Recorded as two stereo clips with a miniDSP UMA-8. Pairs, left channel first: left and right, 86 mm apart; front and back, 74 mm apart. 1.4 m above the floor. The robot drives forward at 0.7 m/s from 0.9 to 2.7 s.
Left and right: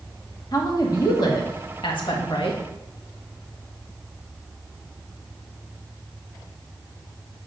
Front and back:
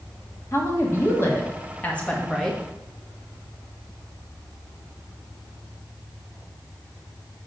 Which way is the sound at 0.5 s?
50° left.